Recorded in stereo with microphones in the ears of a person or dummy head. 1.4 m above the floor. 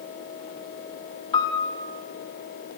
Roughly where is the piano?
Left.